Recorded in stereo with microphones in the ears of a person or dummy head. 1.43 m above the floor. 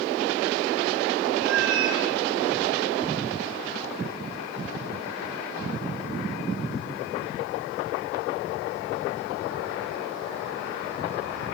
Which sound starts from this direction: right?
A cat meowing, at 1.4 s.